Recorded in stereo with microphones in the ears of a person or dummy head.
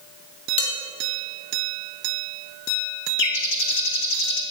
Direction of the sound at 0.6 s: 35° left (ahead or behind).